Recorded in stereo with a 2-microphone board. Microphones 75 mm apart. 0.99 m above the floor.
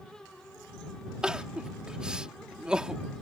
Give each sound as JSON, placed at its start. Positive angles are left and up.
{"t": 1.2, "sound": "crying", "side_deg": -10}